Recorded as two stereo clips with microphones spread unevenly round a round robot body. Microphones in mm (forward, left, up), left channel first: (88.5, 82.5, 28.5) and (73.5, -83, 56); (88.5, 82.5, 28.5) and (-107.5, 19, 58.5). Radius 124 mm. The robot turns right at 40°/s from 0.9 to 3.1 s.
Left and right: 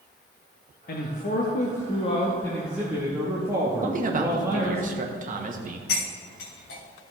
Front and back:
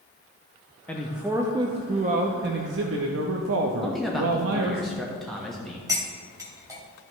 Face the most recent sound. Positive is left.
turn(degrees=125)